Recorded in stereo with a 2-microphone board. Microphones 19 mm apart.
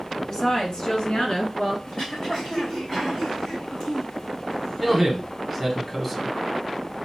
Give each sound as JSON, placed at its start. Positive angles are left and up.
{"t": 0.3, "sound": "a woman speaking", "side_deg": 30, "distance_m": 1.2}
{"t": 1.9, "sound": "throat clearing", "side_deg": 50, "distance_m": 3.0}
{"t": 4.8, "sound": "a man speaking", "side_deg": 5, "distance_m": 1.0}